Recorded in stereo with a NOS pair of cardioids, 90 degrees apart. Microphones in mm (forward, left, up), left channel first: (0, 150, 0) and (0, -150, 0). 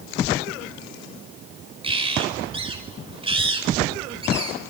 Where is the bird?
20° right, 5.5 m.